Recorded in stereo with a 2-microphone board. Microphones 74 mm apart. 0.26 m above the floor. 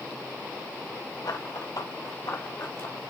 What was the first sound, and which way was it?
Running footsteps, 70° left (ahead or behind).